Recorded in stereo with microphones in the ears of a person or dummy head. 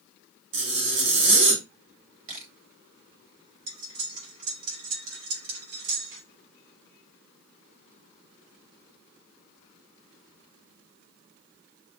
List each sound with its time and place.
0.5 s a zipper: 60° right (ahead or behind), 1.7 m
2.3 s a camera shutter: 35° right (ahead or behind), 1.2 m
3.7 s cutlery clinking: 80° right, 3 m